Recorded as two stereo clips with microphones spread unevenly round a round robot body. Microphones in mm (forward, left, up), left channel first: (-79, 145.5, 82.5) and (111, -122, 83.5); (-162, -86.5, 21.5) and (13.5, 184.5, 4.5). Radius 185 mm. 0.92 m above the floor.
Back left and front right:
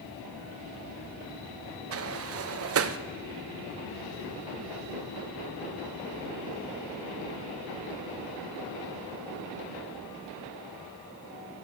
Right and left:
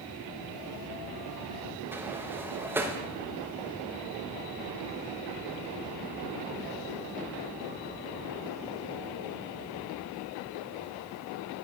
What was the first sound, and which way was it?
A sliding door, 20° right.